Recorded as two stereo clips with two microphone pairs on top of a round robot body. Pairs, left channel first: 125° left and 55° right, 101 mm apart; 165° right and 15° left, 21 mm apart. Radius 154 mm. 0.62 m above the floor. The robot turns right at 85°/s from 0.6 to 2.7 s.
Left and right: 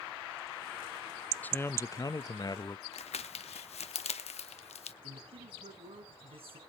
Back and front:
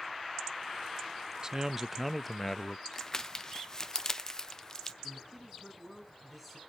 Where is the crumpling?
130° left, 1.1 m.